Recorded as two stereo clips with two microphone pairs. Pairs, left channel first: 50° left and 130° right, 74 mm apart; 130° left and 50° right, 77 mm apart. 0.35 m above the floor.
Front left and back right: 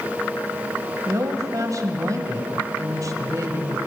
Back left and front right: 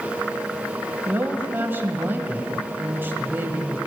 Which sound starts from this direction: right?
A woman speaking, at 1.1 s.